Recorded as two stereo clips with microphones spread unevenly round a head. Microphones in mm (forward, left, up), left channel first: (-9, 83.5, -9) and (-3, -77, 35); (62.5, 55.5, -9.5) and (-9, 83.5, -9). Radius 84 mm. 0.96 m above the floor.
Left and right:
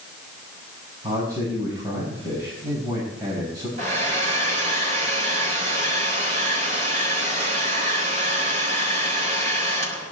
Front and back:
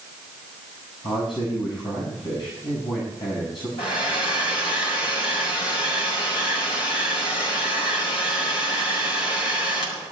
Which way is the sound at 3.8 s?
35° right.